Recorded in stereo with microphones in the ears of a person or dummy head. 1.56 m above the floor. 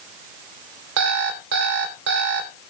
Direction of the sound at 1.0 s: 65° right (ahead or behind).